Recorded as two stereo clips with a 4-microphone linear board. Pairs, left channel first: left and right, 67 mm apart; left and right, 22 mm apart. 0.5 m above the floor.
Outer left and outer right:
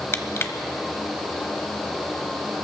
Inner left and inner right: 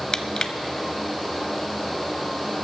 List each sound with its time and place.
0.1 s crushing: 40° left (ahead or behind), 0.8 m